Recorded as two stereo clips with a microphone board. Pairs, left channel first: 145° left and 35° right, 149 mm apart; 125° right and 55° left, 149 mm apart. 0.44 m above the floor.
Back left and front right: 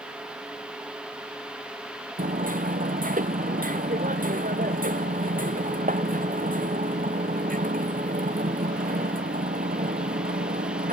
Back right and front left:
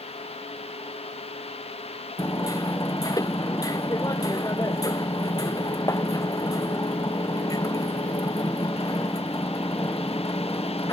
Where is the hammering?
55° right.